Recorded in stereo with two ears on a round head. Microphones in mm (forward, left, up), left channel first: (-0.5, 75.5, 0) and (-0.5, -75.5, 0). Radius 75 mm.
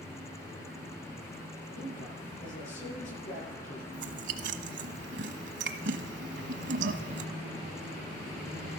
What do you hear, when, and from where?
1.8 s a man speaking: 50° left (ahead or behind), 8.5 m
3.9 s chewing: 75° right (ahead or behind), 1.2 m